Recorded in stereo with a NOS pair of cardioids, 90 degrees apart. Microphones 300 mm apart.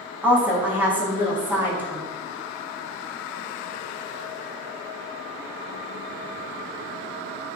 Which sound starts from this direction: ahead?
A woman speaking, at 0.2 s.